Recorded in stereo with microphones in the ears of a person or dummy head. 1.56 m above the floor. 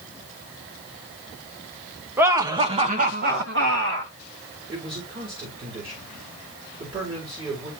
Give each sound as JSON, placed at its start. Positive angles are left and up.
{"t": 2.2, "sound": "laughter", "side_deg": -15, "distance_m": 1.4}
{"t": 4.7, "sound": "a man speaking", "side_deg": -30, "distance_m": 4.5}